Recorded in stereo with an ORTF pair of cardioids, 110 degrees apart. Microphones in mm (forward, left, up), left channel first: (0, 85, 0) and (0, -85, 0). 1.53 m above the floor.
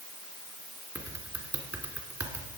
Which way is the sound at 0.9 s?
20° right.